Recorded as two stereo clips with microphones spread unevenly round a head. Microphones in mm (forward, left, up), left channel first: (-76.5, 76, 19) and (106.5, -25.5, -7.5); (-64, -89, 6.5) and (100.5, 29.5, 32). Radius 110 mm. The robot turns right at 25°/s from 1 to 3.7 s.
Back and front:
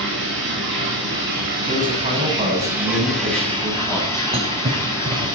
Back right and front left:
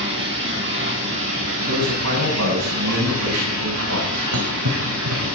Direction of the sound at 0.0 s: 5° left.